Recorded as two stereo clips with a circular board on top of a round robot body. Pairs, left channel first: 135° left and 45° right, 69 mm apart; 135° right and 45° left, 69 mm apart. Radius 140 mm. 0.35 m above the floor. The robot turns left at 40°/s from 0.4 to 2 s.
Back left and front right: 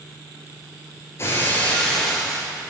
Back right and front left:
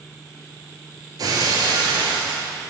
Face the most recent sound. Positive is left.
turn(degrees=50)